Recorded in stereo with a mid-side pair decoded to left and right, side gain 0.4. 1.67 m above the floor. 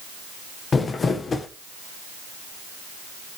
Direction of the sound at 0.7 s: 45° left.